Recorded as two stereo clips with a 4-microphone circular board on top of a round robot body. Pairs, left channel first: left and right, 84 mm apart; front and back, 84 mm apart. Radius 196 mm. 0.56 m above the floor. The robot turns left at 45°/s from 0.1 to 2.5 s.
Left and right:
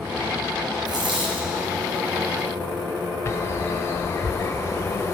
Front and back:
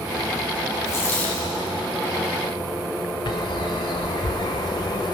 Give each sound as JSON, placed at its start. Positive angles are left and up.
{"t": 0.8, "sound": "a dropped coin", "azimuth_deg": -55, "distance_m": 3.5}
{"t": 3.2, "sound": "a bird", "azimuth_deg": 30, "distance_m": 0.6}